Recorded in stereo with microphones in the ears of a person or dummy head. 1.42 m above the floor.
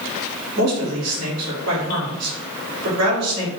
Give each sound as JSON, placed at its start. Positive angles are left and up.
{"t": 0.6, "sound": "a man speaking", "side_deg": -80, "distance_m": 1.7}